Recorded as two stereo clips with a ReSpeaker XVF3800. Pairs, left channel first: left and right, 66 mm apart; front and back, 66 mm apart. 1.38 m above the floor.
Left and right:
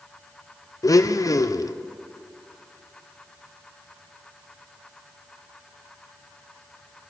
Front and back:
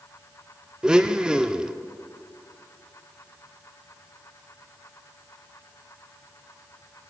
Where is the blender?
105° left, 0.6 m.